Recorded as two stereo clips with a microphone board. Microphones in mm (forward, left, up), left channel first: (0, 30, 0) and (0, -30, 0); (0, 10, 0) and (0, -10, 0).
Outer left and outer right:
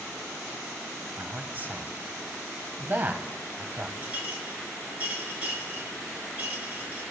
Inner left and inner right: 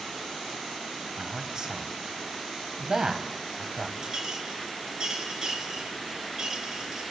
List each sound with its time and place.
1.2 s a man speaking: 35° right (ahead or behind), 1.1 m
4.0 s a clink: 25° right (ahead or behind), 3 m